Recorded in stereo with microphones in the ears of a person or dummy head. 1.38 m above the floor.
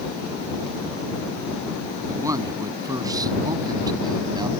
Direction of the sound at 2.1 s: 15° right (ahead or behind).